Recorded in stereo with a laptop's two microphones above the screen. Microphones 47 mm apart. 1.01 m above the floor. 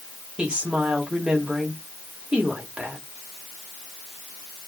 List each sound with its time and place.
0.4 s a woman speaking: 20° right (ahead or behind), 2 m